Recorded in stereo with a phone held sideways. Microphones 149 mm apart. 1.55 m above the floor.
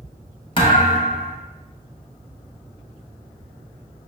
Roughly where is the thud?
Left.